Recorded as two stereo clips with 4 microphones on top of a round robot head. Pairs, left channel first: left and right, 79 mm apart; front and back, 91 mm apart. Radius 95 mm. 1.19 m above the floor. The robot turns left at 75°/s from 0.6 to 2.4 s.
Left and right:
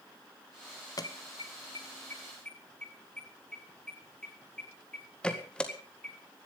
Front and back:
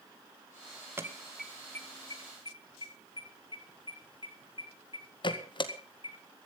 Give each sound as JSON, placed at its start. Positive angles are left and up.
{"t": 1.0, "sound": "an alarm", "azimuth_deg": 120, "distance_m": 1.8}